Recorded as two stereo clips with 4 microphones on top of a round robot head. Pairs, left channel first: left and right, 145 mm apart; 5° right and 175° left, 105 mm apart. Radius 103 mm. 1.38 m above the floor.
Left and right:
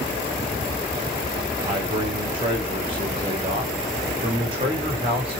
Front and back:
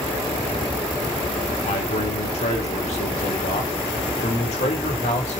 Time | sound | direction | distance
1.7 | a man speaking | 30° right | 3.5 m